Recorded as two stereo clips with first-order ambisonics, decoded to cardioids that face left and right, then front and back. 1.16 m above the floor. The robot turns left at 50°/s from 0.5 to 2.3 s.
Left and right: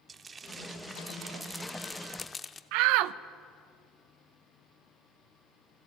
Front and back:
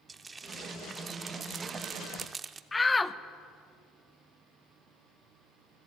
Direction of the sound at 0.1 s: 130° right.